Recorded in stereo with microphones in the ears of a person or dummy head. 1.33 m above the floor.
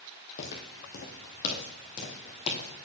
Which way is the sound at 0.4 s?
50° left (ahead or behind).